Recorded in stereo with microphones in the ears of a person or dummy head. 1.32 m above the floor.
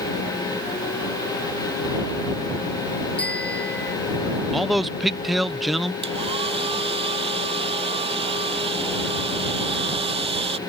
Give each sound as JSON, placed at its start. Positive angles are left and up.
{"t": 3.2, "sound": "a bicycle bell", "side_deg": 5}
{"t": 4.5, "sound": "a man speaking", "side_deg": 0}
{"t": 6.0, "sound": "a hair dryer", "side_deg": -25}